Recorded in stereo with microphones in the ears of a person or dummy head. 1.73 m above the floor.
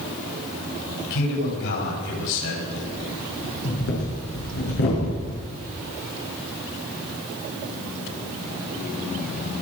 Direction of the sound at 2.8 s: 55° left (ahead or behind).